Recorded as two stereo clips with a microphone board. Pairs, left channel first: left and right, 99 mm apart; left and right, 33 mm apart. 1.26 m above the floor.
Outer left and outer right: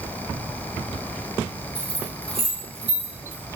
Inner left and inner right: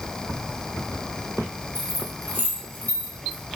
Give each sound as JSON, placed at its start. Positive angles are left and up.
{"t": 1.8, "sound": "keys jangling", "side_deg": 80, "distance_m": 0.9}